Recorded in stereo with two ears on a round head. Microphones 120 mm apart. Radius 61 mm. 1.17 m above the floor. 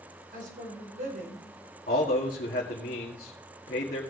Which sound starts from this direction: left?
A man speaking, at 1.9 s.